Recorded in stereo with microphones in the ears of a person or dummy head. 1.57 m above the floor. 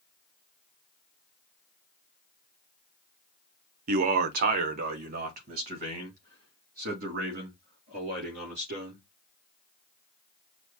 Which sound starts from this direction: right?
A man speaking, at 3.9 s.